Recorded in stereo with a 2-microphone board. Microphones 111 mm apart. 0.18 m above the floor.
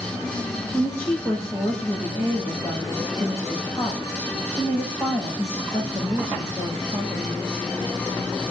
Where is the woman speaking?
20° left (ahead or behind), 8 m.